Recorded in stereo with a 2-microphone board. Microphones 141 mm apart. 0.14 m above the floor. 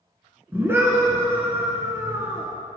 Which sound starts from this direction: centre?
A scream, at 0.5 s.